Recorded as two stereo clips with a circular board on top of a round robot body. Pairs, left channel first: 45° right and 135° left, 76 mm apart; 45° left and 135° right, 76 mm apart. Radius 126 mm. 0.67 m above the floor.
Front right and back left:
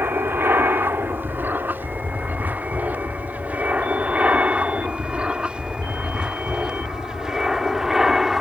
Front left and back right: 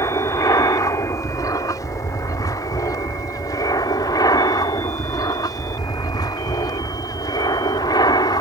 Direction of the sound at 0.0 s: 80° left.